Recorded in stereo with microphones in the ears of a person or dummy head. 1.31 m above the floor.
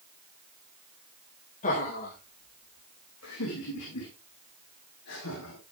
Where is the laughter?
40° left (ahead or behind), 2 m; by 5.6 s 70° left (ahead or behind), 4 m.